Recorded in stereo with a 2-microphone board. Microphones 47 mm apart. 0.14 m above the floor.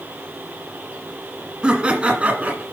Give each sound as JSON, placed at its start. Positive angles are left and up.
{"t": 1.6, "sound": "laughter", "side_deg": -20, "distance_m": 1.6}